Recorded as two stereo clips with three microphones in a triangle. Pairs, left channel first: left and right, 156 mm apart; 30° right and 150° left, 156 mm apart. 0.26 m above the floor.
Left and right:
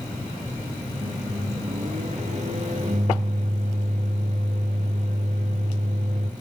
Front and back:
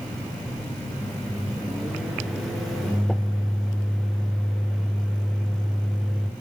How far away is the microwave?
About 2.5 m.